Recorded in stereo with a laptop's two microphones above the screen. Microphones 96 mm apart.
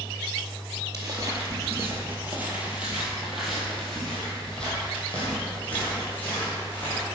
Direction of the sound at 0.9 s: 40° right (ahead or behind).